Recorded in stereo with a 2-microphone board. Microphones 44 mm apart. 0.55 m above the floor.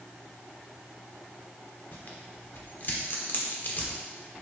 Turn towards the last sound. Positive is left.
turn(degrees=50)  # may be behind; listen again after turning